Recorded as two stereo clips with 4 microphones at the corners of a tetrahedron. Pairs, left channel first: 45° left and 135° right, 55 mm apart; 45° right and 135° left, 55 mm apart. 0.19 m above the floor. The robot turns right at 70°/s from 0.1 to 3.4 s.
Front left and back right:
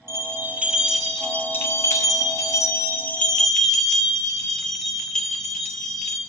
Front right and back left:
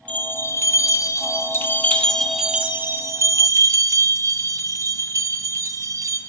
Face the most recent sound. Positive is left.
turn(degrees=125)